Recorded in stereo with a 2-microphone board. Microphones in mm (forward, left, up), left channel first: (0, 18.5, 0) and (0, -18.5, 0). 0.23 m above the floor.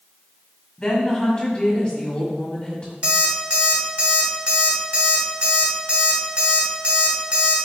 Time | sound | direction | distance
0.8 | a woman speaking | 30° left (ahead or behind) | 1.6 m
3.0 | an alarm clock | 35° right (ahead or behind) | 0.9 m